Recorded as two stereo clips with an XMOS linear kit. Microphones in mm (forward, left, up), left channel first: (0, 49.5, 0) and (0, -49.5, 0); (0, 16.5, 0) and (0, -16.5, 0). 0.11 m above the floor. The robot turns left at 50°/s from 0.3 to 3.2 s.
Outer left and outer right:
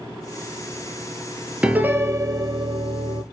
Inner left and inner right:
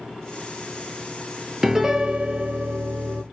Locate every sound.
1.6 s a piano: 10° right, 0.6 m; by 3.2 s 90° right, 0.6 m